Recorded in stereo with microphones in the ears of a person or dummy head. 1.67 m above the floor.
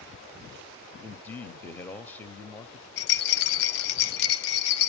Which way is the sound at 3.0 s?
65° left (ahead or behind).